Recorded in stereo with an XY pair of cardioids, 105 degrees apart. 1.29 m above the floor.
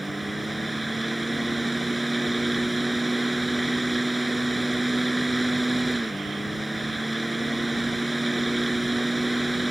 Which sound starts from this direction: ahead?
A fan, at 0.0 s.